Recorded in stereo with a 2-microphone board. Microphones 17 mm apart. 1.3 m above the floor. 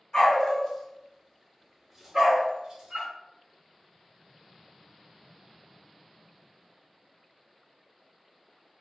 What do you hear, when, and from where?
0.1 s a dog barking: 40° left (ahead or behind), 1.5 m; by 3.1 s 55° right (ahead or behind), 1.2 m